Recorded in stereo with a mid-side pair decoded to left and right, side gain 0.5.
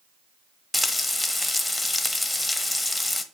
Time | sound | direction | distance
0.7 | frying | 20° left | 1.1 m